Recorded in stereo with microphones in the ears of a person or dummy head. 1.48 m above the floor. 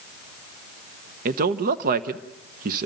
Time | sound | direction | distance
1.2 | a man speaking | 55° right (ahead or behind) | 0.8 m